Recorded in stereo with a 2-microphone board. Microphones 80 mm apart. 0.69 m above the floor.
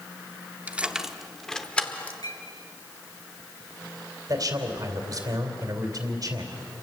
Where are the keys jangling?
20° right (ahead or behind), 0.9 m; by 2.1 s 20° left (ahead or behind), 1.5 m.